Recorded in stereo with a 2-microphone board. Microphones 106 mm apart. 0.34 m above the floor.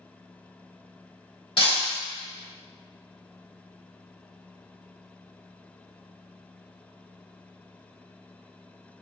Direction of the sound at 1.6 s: 55° left (ahead or behind).